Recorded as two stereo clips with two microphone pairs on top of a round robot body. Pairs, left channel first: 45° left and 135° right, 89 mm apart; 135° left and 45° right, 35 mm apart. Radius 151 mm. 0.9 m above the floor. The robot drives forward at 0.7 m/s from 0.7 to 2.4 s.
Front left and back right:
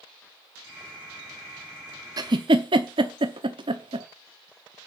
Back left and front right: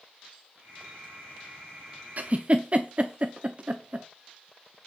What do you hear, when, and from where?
2.2 s a giggle: 90° right, 0.6 m; by 4.1 s 110° right, 0.6 m